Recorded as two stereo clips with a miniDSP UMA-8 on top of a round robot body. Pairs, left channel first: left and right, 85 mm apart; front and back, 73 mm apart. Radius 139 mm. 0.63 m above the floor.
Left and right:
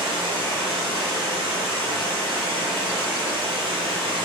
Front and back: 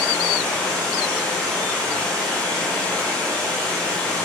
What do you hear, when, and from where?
0.0 s running water: 75° right, 1.3 m